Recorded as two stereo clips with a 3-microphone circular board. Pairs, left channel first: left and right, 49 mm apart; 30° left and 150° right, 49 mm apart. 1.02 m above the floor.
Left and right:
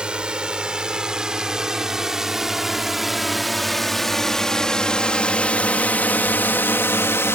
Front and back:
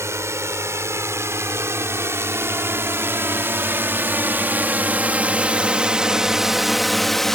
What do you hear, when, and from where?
0.0 s a drone: 160° right; by 7.4 s 115° left